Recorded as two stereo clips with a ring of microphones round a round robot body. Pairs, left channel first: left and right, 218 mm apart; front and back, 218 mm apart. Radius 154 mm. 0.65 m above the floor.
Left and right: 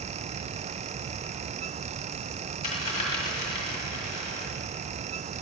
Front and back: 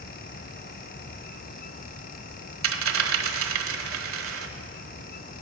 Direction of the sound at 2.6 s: 160° left.